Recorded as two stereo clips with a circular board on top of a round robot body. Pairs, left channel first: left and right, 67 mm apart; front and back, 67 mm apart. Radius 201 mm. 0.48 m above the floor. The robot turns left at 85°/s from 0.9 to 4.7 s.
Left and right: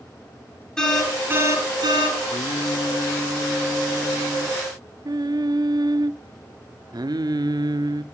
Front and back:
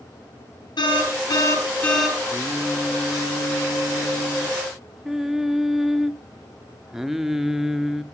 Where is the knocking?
I don't hear knocking.